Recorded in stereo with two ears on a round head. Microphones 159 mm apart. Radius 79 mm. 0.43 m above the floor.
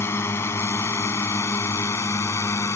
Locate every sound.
0.0 s a drone: 15° left (ahead or behind)